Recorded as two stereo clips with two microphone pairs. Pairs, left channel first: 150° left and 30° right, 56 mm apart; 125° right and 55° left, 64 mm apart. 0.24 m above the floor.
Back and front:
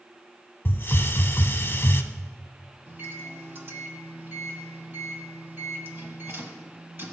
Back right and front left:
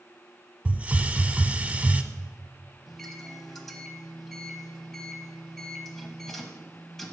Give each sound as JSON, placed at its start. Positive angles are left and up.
{"t": 0.7, "sound": "a hiss", "azimuth_deg": 115, "distance_m": 0.6}
{"t": 2.9, "sound": "a microwave", "azimuth_deg": -40, "distance_m": 1.0}